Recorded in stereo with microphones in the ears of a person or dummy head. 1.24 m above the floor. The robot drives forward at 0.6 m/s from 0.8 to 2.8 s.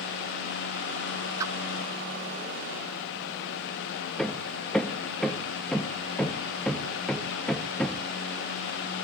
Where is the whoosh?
15° right (ahead or behind), 0.8 m.